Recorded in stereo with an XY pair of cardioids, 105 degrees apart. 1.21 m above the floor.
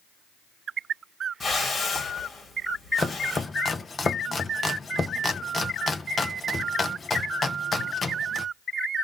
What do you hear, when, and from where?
1.4 s a whoosh: 30° left, 1.9 m
3.0 s chopping: 30° left, 0.7 m